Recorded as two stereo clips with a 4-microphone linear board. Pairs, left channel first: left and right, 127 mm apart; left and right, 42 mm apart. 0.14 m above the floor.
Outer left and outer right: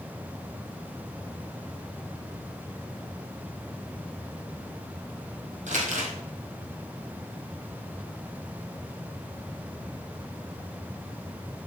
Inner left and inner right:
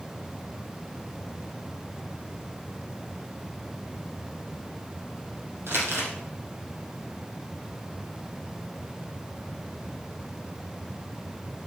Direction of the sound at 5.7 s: 75° right (ahead or behind).